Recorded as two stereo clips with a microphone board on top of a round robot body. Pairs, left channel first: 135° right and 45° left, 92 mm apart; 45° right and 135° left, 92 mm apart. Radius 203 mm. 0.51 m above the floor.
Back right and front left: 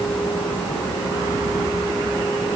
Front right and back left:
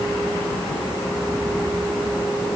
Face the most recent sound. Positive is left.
No sound to turn to.